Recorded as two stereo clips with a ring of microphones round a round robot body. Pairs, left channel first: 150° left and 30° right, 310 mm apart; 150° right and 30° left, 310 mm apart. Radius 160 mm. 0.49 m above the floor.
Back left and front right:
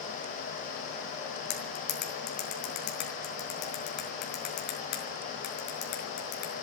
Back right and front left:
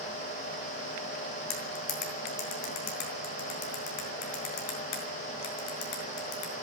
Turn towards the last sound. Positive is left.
turn(degrees=-150)